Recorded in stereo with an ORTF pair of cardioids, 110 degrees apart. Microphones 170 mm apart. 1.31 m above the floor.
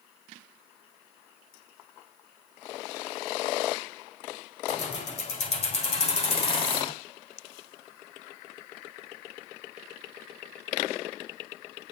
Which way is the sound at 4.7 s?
45° left.